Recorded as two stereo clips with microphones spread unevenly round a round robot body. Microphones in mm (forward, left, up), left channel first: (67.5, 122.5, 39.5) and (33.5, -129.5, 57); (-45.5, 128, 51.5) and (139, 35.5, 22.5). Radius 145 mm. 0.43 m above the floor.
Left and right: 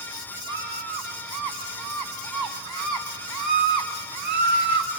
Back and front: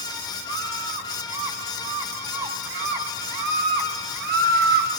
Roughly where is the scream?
Right.